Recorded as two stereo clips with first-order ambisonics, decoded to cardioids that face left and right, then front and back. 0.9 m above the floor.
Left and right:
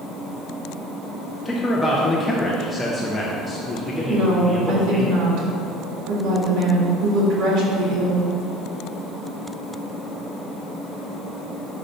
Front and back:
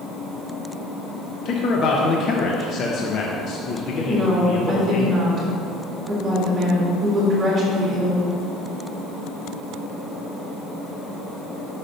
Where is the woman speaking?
115° right, 1.9 m.